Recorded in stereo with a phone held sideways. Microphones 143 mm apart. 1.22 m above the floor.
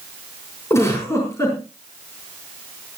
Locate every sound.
0.7 s a giggle: 20° left (ahead or behind), 5.5 m